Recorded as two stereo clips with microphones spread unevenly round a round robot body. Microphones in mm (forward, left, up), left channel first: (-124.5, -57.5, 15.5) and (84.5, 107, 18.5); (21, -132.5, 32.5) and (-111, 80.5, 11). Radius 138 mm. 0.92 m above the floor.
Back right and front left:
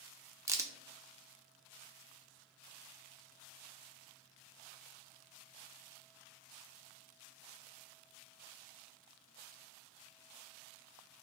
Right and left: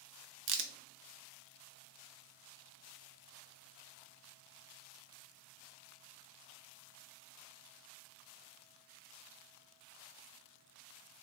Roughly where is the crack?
Left.